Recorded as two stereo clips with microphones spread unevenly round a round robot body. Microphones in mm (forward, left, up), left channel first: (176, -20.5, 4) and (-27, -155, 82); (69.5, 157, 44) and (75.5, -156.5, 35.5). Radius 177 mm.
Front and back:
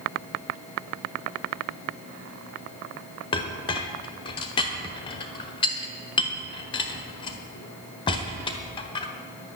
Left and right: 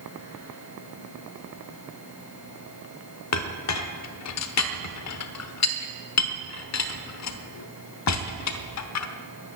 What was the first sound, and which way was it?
A clink, 80° left.